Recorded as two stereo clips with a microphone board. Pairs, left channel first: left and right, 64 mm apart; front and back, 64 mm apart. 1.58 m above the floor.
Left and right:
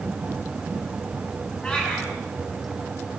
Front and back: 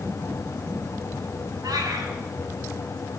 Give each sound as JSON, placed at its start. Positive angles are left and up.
{"t": 1.6, "sound": "a cat meowing", "azimuth_deg": 165, "distance_m": 7.0}